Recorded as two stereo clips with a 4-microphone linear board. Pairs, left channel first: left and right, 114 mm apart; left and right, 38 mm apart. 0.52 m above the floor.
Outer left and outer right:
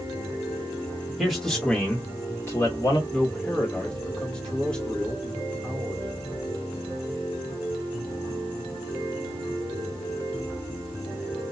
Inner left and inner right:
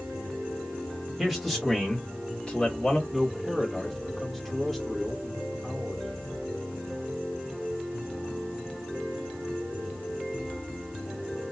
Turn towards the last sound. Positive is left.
turn(degrees=10)  # may be behind; listen again after turning